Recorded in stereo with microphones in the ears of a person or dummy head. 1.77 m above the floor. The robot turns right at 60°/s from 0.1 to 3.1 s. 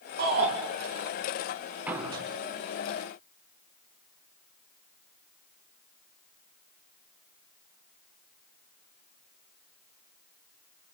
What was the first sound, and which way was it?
A shout, 50° right (ahead or behind).